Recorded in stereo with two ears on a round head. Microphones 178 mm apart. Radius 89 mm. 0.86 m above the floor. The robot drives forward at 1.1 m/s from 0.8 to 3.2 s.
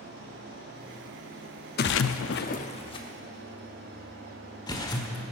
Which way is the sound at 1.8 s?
50° left (ahead or behind).